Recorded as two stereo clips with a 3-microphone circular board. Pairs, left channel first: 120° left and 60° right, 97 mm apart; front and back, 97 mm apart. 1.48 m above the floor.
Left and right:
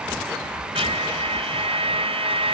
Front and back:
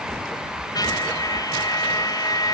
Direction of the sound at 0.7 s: 50° right.